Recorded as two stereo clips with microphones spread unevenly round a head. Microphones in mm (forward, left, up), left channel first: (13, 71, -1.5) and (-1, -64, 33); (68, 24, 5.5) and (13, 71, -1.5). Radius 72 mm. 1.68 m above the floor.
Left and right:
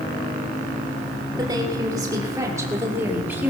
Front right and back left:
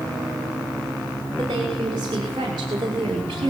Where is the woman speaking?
160° right, 6.5 m; by 3.5 s 175° right, 4.5 m.